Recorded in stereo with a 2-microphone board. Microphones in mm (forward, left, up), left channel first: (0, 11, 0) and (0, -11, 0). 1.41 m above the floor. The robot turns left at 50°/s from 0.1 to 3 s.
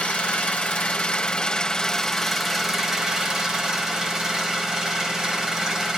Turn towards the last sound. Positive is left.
turn(degrees=-30)